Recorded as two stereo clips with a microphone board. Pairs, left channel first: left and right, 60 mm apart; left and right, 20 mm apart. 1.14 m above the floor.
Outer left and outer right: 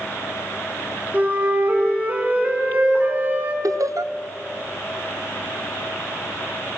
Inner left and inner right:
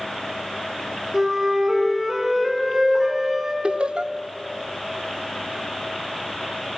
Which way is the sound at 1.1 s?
30° right (ahead or behind).